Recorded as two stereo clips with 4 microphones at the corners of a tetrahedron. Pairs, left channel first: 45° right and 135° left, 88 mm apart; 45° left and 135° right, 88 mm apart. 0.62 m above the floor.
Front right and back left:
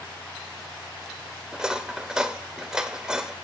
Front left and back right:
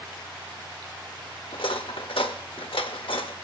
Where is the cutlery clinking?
55° left, 0.9 m.